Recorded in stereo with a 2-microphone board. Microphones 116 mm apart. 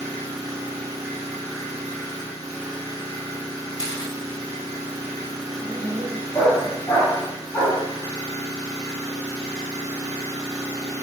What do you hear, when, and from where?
0.0 s an engine running: 30° right (ahead or behind), 1.3 m
3.8 s a camera shutter: 30° left (ahead or behind), 1.1 m
5.6 s a dog barking: 25° left (ahead or behind), 2 m